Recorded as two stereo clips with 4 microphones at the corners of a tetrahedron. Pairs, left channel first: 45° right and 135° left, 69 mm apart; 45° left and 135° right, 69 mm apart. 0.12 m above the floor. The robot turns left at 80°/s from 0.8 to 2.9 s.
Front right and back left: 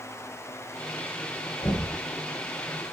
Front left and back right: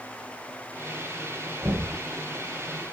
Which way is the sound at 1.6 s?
65° right.